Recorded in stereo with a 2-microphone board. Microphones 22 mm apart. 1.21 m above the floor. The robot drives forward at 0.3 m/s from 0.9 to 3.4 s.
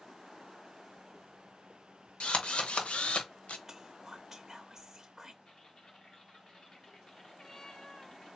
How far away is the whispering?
About 0.6 m.